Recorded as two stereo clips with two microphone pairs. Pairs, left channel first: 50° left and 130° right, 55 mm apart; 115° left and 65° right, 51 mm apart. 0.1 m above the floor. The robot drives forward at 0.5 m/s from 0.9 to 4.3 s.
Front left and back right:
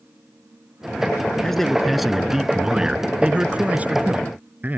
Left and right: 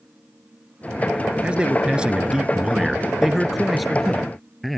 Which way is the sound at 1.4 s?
30° right.